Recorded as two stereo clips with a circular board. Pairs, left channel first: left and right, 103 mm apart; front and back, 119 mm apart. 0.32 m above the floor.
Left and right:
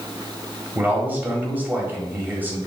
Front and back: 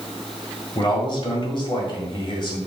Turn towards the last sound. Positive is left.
turn(degrees=-25)